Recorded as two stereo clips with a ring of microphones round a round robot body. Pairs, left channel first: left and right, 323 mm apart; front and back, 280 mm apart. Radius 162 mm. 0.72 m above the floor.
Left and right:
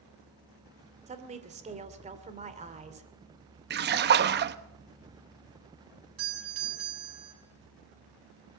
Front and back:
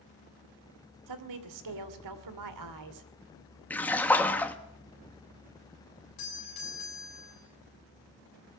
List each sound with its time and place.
1.1 s a woman speaking: 160° right, 2.5 m
3.7 s a splash: 80° right, 1.0 m
6.2 s a doorbell: 40° right, 7.5 m